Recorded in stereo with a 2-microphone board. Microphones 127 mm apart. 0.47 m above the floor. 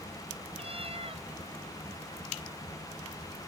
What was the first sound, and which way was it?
A cat meowing, 50° right (ahead or behind).